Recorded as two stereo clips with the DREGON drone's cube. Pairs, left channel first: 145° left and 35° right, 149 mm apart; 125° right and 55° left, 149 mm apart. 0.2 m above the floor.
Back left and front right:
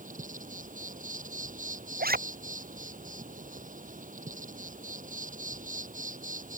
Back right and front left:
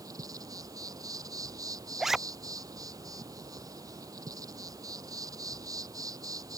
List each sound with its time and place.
0.0 s an insect: 10° right
2.0 s a zipper: 30° right